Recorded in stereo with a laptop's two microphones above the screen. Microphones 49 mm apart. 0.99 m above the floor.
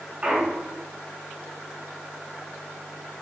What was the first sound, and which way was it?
A clunk, 30° right (ahead or behind).